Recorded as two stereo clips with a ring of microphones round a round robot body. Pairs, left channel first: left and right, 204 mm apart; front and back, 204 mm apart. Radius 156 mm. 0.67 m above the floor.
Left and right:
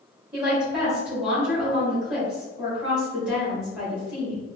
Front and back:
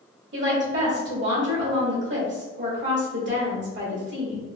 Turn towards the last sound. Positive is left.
turn(degrees=-175)